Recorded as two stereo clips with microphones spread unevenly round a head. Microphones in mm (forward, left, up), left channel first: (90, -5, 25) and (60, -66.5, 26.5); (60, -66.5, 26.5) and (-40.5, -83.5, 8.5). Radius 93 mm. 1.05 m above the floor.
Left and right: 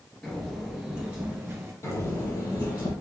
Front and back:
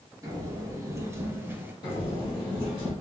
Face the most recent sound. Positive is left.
turn(degrees=65)